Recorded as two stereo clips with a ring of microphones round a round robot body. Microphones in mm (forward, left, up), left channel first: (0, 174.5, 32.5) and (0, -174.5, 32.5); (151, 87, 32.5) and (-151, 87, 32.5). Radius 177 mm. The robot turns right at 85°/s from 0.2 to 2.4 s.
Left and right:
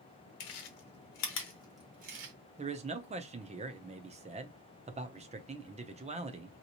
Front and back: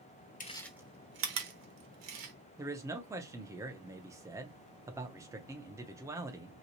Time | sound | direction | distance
0.4 | chewing | 65° left | 1.1 m
2.6 | a man speaking | 120° right | 0.6 m